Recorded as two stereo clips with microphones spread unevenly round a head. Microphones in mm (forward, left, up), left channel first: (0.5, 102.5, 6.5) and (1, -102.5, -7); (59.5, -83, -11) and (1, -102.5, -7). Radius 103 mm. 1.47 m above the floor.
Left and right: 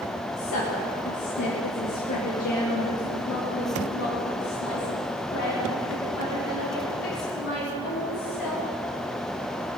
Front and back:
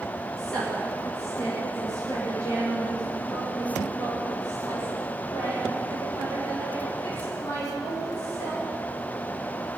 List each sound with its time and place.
0.4 s a woman speaking: 105° left, 2.5 m; by 8.7 s 55° left, 6 m